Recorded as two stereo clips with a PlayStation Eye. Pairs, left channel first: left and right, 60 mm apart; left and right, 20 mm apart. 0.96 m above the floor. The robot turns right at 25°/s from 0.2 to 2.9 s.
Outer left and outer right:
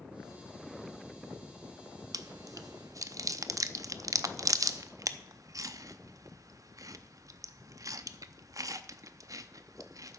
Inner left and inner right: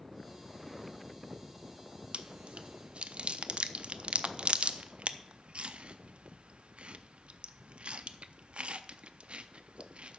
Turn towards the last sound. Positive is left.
turn(degrees=-65)  # may be behind; listen again after turning